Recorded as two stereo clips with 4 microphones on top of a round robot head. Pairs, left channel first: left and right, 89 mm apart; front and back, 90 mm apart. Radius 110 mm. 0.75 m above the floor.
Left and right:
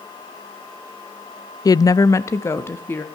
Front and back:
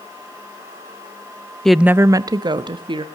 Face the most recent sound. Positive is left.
turn(degrees=155)